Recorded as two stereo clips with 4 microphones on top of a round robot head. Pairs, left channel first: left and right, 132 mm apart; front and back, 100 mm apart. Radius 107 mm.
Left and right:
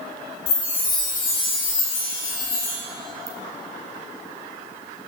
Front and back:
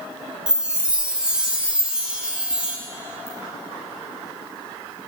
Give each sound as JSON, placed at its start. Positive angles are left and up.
{"t": 0.5, "sound": "a chime", "azimuth_deg": 100, "distance_m": 1.5}
{"t": 3.3, "sound": "a ringtone", "azimuth_deg": -30, "distance_m": 0.7}